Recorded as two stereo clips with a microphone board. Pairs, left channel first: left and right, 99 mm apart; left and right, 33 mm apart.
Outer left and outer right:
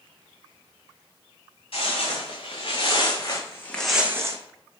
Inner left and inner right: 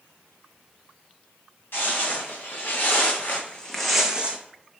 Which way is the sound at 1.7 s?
65° left (ahead or behind).